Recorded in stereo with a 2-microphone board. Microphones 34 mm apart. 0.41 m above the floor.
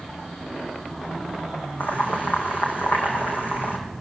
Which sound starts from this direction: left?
Boiling, at 1.8 s.